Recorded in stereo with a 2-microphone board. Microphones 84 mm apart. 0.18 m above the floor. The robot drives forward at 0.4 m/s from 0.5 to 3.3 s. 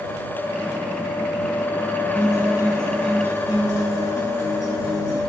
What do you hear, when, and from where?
2.1 s a guitar: 15° right (ahead or behind), 3 m